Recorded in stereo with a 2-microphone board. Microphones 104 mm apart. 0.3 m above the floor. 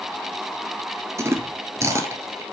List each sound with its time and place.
1.2 s chewing: 30° right (ahead or behind), 1.2 m